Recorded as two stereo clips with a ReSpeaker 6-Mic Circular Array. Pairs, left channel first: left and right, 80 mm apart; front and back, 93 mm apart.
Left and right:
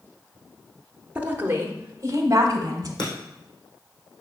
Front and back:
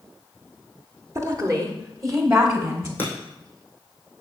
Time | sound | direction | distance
1.1 | a woman speaking | 150° right | 1.1 m
3.0 | breaking glass | 70° left | 3.5 m